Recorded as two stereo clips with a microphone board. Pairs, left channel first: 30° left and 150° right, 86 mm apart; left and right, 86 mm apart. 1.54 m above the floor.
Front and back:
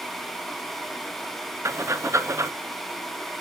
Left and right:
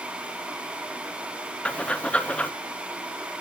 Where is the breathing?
165° left, 0.7 m.